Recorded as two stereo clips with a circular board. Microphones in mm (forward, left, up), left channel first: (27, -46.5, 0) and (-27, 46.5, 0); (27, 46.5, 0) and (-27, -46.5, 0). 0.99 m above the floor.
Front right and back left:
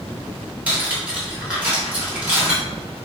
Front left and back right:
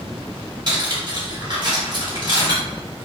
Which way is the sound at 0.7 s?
165° right.